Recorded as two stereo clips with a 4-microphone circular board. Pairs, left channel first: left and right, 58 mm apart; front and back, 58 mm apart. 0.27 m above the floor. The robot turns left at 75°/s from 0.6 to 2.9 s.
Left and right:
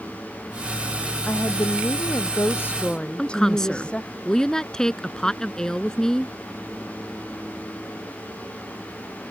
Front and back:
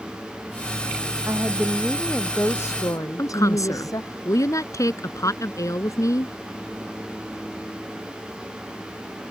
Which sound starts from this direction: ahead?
A woman speaking, at 3.2 s.